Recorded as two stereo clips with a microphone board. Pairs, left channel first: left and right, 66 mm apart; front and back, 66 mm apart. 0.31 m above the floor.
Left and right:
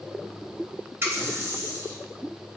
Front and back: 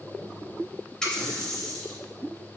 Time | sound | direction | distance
1.0 | a running tap | 75° right | 0.9 m